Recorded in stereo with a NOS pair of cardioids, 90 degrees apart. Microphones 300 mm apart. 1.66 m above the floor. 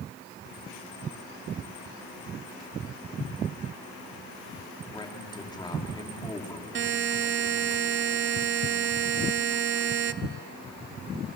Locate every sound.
4.9 s a man speaking: 15° left, 3 m
6.8 s a buzzer: 45° right, 0.7 m